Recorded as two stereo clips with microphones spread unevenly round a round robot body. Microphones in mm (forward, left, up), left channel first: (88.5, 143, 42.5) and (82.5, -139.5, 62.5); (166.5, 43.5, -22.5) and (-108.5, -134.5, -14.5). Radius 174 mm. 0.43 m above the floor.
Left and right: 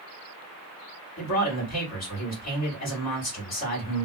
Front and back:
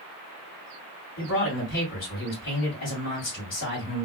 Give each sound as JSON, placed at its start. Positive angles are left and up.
{"t": 1.2, "sound": "a man speaking", "azimuth_deg": 85, "distance_m": 1.6}